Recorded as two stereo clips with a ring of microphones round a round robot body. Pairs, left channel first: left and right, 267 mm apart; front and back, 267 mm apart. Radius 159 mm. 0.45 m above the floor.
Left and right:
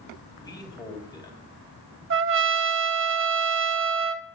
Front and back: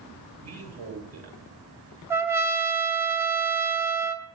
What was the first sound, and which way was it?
A man speaking, 165° left.